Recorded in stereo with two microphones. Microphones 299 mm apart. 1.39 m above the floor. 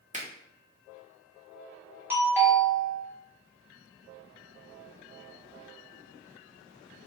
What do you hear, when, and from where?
0.1 s a finger snap: 25° right (ahead or behind), 1.0 m
2.1 s a doorbell: 5° right (ahead or behind), 1.3 m